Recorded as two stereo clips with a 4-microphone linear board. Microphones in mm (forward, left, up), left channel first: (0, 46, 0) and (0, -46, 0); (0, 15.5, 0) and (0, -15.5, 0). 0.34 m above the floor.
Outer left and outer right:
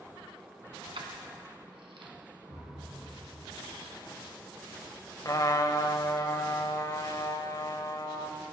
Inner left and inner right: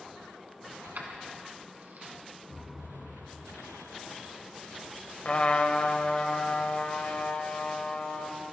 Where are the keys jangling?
70° right (ahead or behind), 1.9 m.